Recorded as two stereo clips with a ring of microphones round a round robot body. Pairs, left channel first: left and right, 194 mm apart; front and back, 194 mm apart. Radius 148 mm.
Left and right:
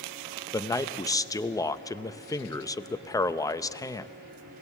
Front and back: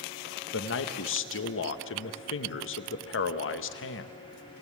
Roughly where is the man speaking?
Ahead.